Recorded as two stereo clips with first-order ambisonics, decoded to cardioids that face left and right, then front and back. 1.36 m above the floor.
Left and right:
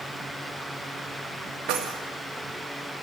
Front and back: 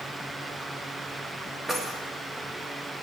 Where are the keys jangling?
105° right, 1.5 m.